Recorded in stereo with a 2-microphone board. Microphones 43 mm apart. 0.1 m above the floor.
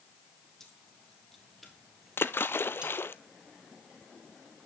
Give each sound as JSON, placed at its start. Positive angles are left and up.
{"t": 0.6, "sound": "keys jangling", "side_deg": 10, "distance_m": 3.0}
{"t": 2.2, "sound": "a splash", "side_deg": 65, "distance_m": 0.6}